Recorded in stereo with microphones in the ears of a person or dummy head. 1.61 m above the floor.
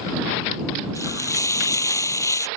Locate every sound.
0.9 s frying: 10° left (ahead or behind)